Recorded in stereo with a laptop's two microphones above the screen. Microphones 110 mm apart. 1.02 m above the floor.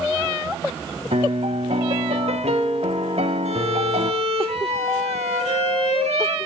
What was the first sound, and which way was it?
A piano, 75° right (ahead or behind).